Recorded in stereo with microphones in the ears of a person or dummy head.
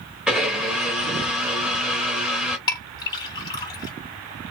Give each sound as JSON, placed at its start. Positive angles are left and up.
{"t": 0.3, "sound": "a blender", "side_deg": -5, "distance_m": 1.0}
{"t": 2.7, "sound": "a clink", "side_deg": 25, "distance_m": 1.7}